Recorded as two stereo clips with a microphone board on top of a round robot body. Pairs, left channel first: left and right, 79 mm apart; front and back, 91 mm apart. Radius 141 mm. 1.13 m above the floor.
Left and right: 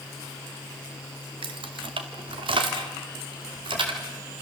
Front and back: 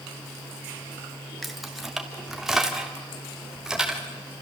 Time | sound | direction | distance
1.4 | keys jangling | 90° right | 1.6 m